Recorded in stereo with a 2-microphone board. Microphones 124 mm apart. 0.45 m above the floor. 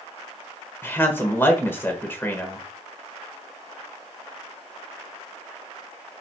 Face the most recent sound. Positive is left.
turn(degrees=20)  # may be behind; listen again after turning